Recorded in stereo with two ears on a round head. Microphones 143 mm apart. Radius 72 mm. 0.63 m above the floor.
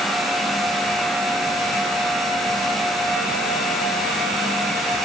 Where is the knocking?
I don't hear knocking.